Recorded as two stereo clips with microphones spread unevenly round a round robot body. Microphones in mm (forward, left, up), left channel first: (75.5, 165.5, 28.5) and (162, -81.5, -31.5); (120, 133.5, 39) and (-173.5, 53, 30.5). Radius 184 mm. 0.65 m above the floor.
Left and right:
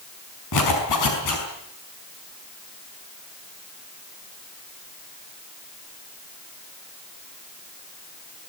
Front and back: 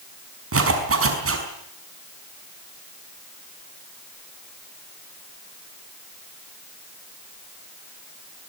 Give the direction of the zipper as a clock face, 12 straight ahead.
7 o'clock.